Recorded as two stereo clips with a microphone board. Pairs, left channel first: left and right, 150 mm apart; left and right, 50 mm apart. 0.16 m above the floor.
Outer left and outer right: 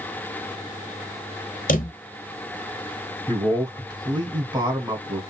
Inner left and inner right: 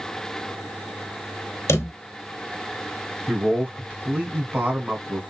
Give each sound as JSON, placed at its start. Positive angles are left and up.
{"t": 1.7, "sound": "a drawer", "side_deg": 65, "distance_m": 0.7}
{"t": 3.3, "sound": "a man speaking", "side_deg": -30, "distance_m": 1.5}